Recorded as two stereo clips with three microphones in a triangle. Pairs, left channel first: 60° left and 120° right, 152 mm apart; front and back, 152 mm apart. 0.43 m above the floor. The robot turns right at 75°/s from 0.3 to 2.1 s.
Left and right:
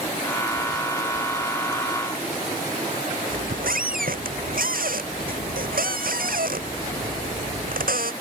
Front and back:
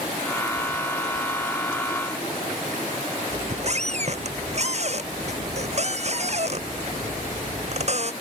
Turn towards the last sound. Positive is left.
turn(degrees=-140)